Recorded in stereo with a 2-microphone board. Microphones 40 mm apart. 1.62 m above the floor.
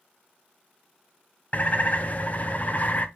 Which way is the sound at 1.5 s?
35° left (ahead or behind).